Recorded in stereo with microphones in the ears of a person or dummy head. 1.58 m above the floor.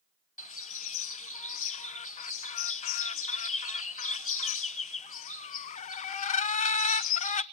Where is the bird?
35° left (ahead or behind), 0.6 m.